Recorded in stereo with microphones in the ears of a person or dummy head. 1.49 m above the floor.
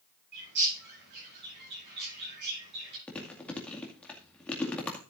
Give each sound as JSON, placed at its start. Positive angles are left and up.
{"t": 0.3, "sound": "a bird", "side_deg": -60, "distance_m": 9.0}
{"t": 3.1, "sound": "chewing", "side_deg": 10, "distance_m": 2.0}